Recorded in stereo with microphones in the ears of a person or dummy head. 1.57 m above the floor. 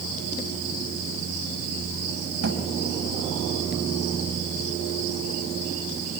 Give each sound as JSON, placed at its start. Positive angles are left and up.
{"t": 2.4, "sound": "a thud", "side_deg": -65, "distance_m": 4.5}